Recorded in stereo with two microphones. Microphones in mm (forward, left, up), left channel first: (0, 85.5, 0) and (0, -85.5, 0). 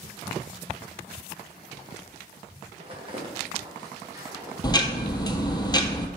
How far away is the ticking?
About 0.7 m.